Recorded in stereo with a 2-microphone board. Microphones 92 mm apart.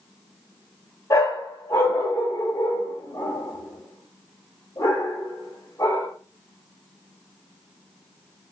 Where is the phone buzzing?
No phone buzzing in this recording.